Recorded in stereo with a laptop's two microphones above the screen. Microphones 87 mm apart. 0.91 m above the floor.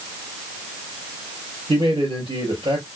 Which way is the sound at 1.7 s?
75° right (ahead or behind).